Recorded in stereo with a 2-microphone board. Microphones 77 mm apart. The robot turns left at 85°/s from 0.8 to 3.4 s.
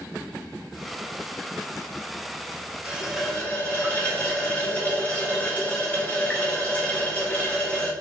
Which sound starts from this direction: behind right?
A running tap, at 2.9 s.